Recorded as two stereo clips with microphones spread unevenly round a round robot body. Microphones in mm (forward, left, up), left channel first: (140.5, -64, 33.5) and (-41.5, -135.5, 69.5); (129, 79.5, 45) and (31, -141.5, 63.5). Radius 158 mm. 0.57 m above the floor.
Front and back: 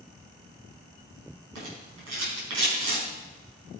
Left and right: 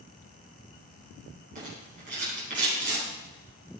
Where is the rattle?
Straight behind, 5 m.